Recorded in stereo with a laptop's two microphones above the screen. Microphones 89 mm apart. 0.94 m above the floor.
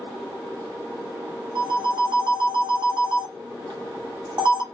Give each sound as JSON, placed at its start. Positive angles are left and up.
{"t": 1.6, "sound": "a phone ringing", "side_deg": -60, "distance_m": 1.0}